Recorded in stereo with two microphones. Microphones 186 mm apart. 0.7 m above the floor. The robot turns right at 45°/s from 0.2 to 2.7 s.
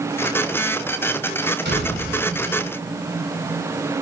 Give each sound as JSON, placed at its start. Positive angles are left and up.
{"t": 1.6, "sound": "a door slam", "side_deg": -85, "distance_m": 6.0}